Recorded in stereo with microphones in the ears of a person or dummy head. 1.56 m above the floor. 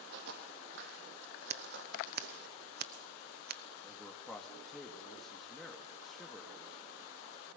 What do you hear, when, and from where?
0.1 s footsteps: 60° right (ahead or behind), 3.5 m; by 2.5 s 70° right (ahead or behind), 5 m
1.5 s scissors: 50° right (ahead or behind), 1.0 m
3.8 s a man speaking: centre (ahead or behind), 1.9 m